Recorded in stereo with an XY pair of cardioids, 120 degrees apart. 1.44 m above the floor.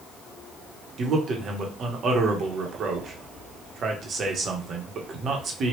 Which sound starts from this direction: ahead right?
A man speaking, at 1.0 s.